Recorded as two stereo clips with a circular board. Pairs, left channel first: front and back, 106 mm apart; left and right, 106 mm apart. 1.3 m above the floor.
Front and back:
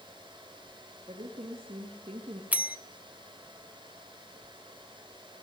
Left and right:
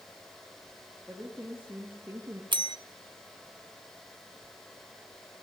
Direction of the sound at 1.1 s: 170° right.